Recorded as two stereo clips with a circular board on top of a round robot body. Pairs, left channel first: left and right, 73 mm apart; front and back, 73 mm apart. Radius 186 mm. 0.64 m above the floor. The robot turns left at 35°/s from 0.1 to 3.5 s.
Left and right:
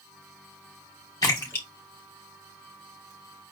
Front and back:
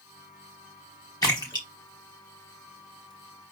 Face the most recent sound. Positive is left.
turn(degrees=-35)